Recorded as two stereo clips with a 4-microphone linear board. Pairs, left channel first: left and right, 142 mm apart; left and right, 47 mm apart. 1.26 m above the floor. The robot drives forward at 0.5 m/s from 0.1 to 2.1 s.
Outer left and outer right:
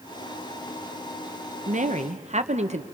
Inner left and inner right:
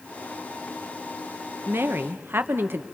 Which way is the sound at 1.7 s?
60° right (ahead or behind).